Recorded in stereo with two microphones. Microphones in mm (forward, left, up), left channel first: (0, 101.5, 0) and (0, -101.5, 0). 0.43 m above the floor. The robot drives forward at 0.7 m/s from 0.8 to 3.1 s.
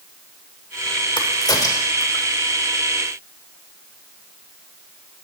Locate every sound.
1.2 s a crack: 20° left (ahead or behind), 0.8 m; by 2.2 s 15° left (ahead or behind), 1.4 m